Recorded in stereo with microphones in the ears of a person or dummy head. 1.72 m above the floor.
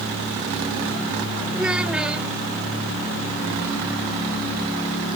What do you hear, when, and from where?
1.5 s a child speaking: 5° right (ahead or behind)